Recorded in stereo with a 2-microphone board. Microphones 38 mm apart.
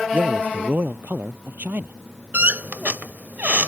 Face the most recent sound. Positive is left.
turn(degrees=-50)  # may be behind; listen again after turning